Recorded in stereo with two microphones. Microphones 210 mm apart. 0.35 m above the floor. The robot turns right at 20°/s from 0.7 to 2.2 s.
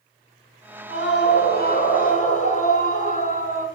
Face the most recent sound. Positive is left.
turn(degrees=35)  # may be behind; listen again after turning